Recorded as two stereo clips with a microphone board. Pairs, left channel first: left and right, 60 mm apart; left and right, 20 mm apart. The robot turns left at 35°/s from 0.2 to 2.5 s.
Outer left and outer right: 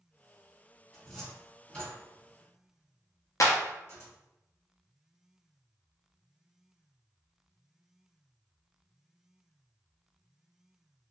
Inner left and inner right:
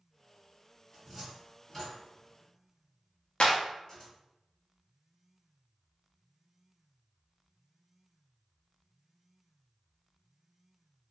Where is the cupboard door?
10° right (ahead or behind), 1.8 m; by 4.1 s 40° left (ahead or behind), 1.8 m.